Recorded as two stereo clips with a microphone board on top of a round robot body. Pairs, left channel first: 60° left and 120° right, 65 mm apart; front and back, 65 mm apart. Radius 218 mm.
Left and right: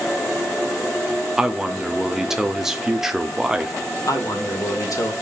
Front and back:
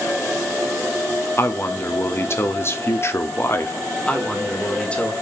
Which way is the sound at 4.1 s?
70° left.